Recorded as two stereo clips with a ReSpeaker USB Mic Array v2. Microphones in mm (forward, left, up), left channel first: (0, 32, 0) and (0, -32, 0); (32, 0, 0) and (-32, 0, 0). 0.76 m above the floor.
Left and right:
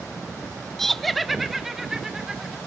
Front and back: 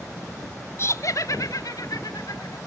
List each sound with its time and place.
0.8 s laughter: 10° left, 0.7 m; by 2.6 s 5° right, 2 m